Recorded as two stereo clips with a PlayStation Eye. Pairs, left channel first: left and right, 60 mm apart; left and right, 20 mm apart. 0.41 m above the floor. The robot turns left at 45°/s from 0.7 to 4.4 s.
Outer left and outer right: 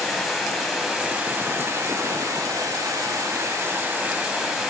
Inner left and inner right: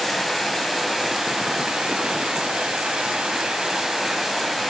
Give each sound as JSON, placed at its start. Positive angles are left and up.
{"t": 0.0, "sound": "running water", "azimuth_deg": 0, "distance_m": 1.2}